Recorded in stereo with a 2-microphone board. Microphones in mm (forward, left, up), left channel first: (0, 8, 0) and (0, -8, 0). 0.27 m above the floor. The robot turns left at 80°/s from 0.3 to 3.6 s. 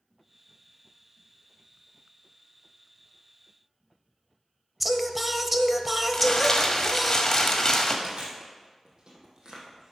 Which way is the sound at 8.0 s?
50° right (ahead or behind).